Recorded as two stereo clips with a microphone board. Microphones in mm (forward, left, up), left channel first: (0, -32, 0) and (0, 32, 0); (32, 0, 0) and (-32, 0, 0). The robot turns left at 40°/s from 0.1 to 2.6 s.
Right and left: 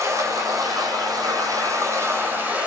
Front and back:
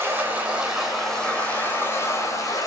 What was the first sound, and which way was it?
Running water, 120° left.